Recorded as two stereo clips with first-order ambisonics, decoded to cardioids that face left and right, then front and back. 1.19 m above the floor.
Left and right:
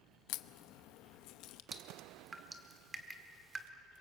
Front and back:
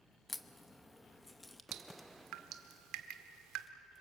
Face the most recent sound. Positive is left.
turn(degrees=-160)